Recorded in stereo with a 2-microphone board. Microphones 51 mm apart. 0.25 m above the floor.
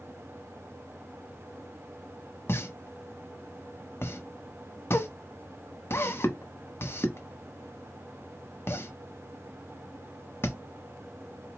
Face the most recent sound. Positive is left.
turn(degrees=50)  # may be behind; listen again after turning